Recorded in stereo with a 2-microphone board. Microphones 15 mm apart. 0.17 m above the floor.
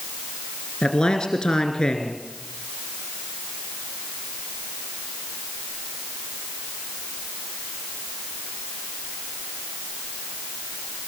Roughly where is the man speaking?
Left.